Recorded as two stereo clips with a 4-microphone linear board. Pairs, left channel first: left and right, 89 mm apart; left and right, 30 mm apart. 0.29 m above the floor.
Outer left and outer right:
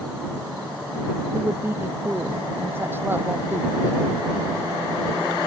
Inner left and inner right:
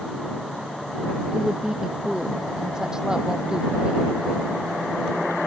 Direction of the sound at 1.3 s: 25° right (ahead or behind).